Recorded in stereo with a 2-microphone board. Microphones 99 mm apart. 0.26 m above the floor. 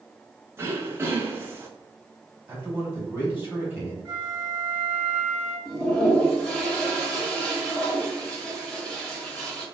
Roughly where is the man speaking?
Centre.